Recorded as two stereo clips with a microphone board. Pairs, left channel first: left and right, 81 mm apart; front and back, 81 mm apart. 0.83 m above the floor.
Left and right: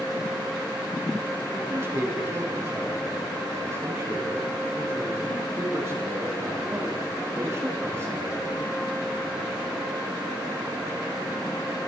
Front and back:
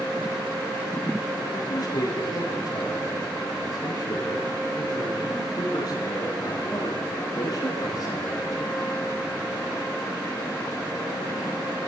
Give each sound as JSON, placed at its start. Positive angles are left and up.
{"t": 1.5, "sound": "a man speaking", "azimuth_deg": -35, "distance_m": 8.5}